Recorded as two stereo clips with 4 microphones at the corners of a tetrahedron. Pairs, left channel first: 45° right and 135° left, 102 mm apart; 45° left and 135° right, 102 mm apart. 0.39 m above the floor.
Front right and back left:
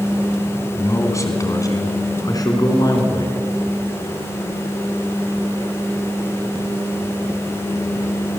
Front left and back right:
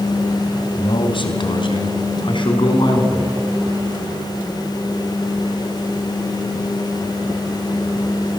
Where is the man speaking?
15° left, 3 m; by 3.4 s 5° left, 5 m.